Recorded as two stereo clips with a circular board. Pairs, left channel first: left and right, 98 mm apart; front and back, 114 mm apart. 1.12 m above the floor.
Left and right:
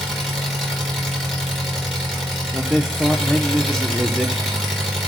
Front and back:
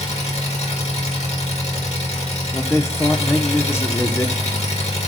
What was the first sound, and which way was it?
An engine running, straight ahead.